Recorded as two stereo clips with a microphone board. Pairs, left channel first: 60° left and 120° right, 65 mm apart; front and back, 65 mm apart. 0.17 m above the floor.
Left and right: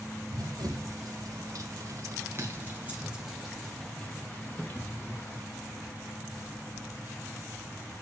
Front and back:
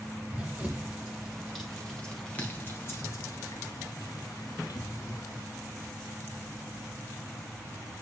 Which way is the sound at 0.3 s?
110° right.